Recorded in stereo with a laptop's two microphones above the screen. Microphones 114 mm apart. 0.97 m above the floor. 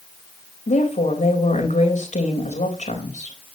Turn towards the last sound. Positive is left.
turn(degrees=75)  # may be behind; listen again after turning